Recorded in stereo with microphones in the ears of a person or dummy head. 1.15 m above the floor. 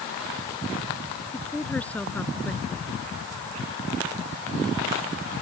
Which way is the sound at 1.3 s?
10° left (ahead or behind).